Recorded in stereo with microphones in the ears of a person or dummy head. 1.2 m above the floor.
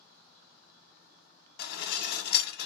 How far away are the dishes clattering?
About 0.8 m.